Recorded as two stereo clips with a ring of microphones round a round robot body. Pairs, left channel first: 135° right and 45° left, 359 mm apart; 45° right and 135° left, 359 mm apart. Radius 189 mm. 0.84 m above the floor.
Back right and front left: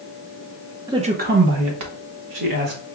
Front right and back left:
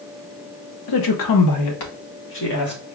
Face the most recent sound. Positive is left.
turn(degrees=15)